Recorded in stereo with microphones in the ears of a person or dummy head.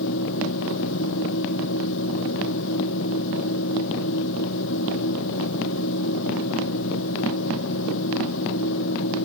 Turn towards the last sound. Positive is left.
turn(degrees=70)  # may be behind; listen again after turning